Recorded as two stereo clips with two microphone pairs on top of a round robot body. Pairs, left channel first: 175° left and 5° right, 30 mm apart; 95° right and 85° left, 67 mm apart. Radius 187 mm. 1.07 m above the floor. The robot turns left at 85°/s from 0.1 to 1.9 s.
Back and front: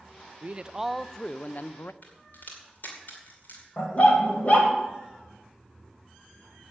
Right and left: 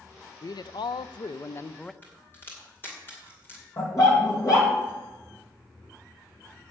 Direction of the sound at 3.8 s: 140° right.